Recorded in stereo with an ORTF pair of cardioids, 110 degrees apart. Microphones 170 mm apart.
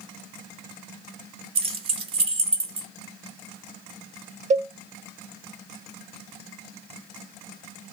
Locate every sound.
1.6 s keys jangling: 35° right, 0.6 m
4.5 s a cowbell: 45° right, 0.6 m